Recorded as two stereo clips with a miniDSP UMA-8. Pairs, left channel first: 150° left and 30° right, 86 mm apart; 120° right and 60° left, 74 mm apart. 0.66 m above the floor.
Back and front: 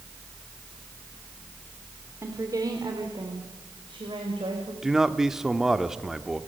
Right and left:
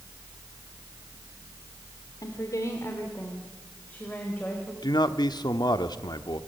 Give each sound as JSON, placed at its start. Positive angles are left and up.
{"t": 2.2, "sound": "a woman speaking", "azimuth_deg": -85, "distance_m": 2.0}
{"t": 4.8, "sound": "a man speaking", "azimuth_deg": -115, "distance_m": 1.1}